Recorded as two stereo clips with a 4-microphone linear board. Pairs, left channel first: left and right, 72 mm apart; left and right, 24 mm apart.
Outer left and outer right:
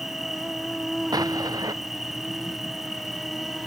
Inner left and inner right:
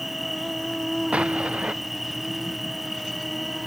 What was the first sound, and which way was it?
An insect, 5° right (ahead or behind).